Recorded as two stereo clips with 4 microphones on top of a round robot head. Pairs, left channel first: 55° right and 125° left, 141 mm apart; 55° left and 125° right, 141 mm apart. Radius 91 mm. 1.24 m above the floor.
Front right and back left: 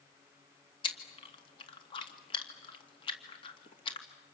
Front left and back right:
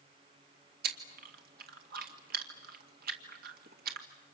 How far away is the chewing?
About 2 m.